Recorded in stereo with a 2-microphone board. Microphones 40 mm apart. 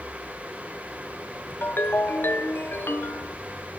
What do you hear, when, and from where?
1.6 s a ringtone: 60° left (ahead or behind), 1.0 m